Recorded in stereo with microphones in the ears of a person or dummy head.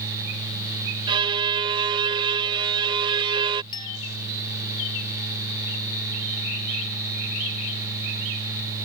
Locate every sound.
1.1 s a violin: 25° right (ahead or behind)
3.7 s a clink: 25° left (ahead or behind)